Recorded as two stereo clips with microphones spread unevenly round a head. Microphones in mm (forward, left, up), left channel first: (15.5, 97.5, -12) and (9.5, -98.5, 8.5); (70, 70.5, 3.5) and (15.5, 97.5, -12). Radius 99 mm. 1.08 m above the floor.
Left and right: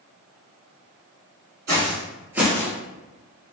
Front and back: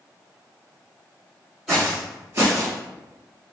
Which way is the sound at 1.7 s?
110° right.